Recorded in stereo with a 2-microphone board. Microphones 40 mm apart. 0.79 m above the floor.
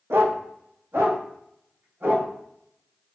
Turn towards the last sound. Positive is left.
turn(degrees=-60)  # may be behind; listen again after turning